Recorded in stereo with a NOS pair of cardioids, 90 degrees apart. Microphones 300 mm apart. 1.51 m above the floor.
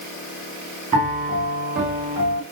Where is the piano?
25° right, 1.0 m.